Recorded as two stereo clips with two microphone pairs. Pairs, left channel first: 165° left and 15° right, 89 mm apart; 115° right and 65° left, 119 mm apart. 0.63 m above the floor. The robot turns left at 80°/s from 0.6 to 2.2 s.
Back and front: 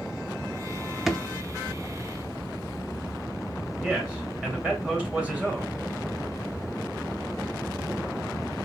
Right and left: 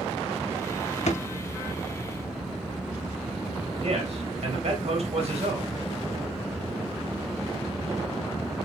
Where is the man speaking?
60° left, 1.8 m.